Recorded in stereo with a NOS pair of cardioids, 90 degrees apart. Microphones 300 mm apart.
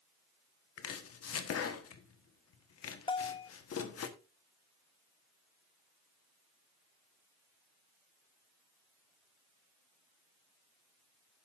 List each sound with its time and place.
0.8 s chopping: 50° left, 1.4 m
3.1 s a bell: 15° left, 0.6 m